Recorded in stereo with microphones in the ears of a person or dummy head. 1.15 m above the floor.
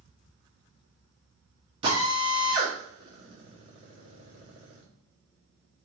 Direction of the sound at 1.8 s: 35° right (ahead or behind).